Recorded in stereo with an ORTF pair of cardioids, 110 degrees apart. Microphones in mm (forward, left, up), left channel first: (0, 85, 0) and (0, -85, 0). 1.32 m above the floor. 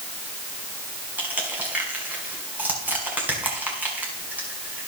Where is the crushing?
10° right, 5 m.